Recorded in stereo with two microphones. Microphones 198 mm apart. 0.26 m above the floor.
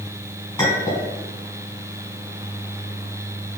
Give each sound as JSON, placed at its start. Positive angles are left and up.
{"t": 0.6, "sound": "a clink", "side_deg": 20, "distance_m": 1.7}